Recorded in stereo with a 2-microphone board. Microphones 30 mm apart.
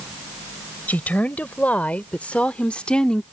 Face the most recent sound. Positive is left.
turn(degrees=25)  # may be behind; listen again after turning